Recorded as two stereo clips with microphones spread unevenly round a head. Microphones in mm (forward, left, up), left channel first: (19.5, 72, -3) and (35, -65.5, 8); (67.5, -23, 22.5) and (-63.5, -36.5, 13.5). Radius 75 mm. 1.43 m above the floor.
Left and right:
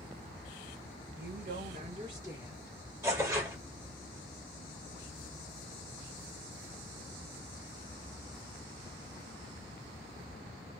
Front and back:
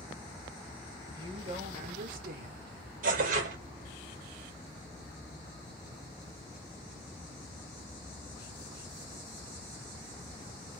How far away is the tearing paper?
About 1.1 m.